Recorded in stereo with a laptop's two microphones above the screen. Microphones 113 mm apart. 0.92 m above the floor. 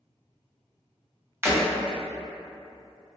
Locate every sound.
1.4 s breaking glass: 25° right (ahead or behind), 1.1 m